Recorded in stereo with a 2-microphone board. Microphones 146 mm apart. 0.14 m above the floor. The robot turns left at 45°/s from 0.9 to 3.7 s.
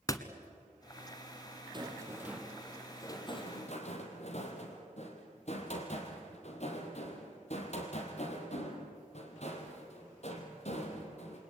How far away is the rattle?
About 3 m.